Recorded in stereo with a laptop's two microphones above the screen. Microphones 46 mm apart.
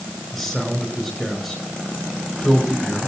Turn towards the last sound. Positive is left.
turn(degrees=-5)  # may be behind; listen again after turning